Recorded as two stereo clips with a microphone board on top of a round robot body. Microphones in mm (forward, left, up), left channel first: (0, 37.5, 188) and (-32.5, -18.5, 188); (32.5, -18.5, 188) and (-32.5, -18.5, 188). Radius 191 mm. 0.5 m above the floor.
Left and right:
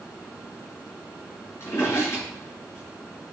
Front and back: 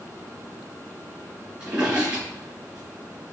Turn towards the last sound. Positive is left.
turn(degrees=110)